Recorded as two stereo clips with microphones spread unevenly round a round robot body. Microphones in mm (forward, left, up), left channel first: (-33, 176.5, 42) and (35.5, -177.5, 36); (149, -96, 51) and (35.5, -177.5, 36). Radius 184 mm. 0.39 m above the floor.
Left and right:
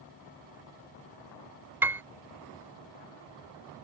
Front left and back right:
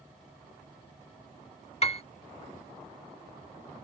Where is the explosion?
I don't hear an explosion.